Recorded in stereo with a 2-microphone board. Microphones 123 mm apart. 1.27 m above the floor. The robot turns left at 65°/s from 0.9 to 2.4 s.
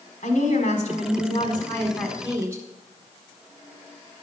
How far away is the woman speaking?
About 4 m.